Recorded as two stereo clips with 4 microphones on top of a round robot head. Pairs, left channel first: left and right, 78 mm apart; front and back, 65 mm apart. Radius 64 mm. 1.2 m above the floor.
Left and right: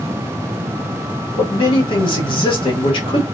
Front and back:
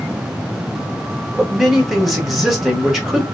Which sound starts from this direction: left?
A man speaking, at 1.4 s.